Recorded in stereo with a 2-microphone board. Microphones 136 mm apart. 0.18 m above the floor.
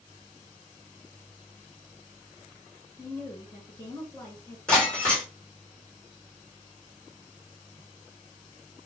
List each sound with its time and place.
3.0 s a woman speaking: 20° left (ahead or behind), 1.5 m
4.7 s breaking glass: 5° left (ahead or behind), 2 m